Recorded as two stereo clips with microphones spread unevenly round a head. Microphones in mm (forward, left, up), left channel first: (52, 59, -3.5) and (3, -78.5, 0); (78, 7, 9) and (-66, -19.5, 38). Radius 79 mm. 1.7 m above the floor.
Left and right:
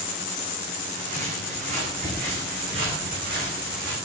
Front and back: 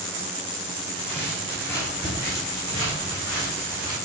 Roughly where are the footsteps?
Right.